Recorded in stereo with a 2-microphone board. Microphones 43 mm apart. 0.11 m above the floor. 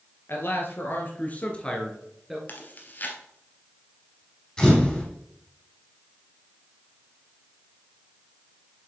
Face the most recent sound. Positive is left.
turn(degrees=15)  # may be behind; listen again after turning